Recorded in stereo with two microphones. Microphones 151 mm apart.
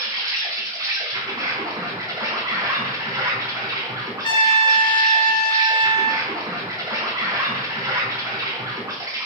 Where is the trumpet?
35° left (ahead or behind), 0.6 m.